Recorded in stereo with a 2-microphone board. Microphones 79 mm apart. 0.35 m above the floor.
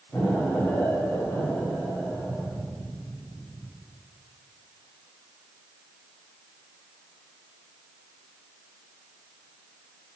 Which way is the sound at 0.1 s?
30° left (ahead or behind).